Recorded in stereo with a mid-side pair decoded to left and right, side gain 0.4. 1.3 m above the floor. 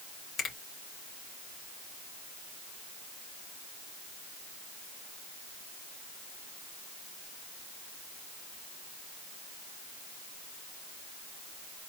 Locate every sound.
0.4 s a finger snap: 70° left, 2.5 m